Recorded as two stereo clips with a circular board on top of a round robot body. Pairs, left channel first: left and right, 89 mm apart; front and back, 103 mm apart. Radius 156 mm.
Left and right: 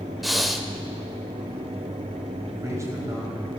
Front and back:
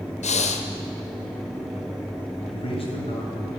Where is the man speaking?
35° right, 4 m.